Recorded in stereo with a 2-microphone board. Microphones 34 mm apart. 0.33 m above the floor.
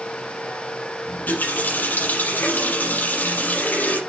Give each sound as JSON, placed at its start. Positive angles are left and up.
{"t": 1.1, "sound": "a running tap", "side_deg": 65, "distance_m": 5.0}